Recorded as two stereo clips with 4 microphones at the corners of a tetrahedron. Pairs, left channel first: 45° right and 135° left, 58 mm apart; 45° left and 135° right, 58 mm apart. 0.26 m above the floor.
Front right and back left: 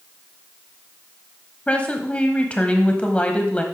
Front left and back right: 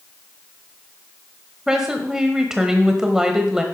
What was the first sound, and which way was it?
A woman speaking, 70° right.